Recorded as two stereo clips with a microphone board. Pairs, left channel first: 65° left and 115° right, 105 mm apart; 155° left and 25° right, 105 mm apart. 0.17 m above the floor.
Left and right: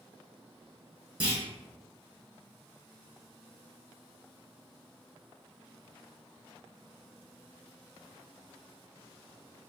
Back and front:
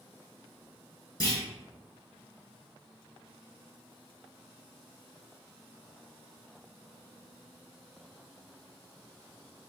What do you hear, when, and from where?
1.2 s a clunk: straight behind, 2.0 m